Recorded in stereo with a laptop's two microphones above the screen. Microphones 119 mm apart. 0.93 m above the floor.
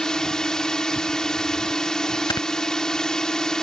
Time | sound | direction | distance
0.0 | a drone | 5° left (ahead or behind) | ?
2.3 | snoring | 40° left (ahead or behind) | ?